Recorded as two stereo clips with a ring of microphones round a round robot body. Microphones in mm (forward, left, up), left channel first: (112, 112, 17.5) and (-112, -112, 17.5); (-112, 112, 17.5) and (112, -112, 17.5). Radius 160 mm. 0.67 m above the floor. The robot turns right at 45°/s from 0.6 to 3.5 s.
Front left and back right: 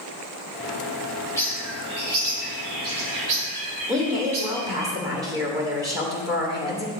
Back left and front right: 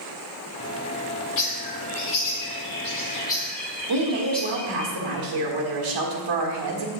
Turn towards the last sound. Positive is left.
turn(degrees=-55)